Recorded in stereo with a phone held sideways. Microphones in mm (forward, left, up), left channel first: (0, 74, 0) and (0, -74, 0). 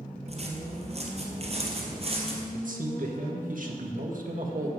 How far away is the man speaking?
About 1.7 m.